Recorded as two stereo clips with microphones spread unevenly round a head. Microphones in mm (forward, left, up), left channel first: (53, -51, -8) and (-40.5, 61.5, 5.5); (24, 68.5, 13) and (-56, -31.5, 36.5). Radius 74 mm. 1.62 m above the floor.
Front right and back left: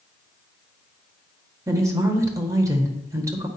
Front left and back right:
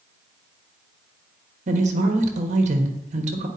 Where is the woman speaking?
160° right, 1.3 m.